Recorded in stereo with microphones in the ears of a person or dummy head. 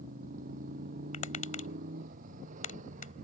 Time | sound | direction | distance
0.0 | a motorcycle | 50° right (ahead or behind) | ?
1.1 | tapping | 40° left (ahead or behind) | ?